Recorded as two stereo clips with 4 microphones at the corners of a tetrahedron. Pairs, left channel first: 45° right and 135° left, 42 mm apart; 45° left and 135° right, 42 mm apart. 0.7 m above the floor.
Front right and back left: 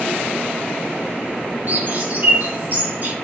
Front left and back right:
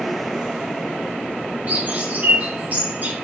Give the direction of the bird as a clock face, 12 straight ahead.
6 o'clock.